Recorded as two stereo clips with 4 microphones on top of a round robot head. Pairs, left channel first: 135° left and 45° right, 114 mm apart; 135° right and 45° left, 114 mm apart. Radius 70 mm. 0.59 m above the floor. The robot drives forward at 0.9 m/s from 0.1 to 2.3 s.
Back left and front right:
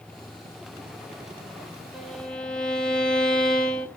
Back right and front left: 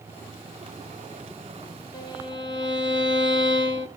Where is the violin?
130° right, 1.3 m; by 3.9 s 145° right, 1.4 m.